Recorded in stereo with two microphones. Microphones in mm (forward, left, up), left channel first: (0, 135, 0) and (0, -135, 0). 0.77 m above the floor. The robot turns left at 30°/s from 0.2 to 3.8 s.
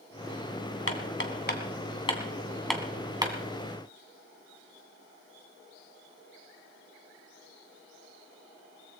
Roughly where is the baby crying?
No baby crying in this recording.